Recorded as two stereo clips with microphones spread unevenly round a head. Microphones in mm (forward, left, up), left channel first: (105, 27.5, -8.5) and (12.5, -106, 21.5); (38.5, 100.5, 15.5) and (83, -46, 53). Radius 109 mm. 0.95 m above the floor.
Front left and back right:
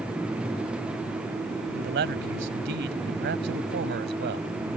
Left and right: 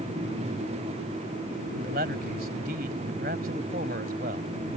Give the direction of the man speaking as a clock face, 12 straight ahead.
4 o'clock.